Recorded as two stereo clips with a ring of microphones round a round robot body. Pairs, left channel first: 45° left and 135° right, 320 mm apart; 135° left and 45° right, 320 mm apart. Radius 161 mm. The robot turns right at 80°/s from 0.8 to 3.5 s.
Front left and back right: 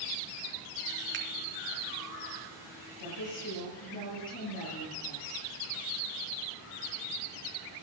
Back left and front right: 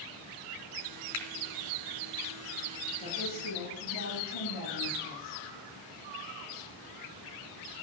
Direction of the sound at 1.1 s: 170° left.